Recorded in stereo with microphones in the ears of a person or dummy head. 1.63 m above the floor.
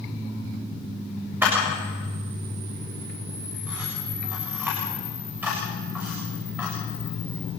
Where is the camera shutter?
5° right (ahead or behind), 7 m.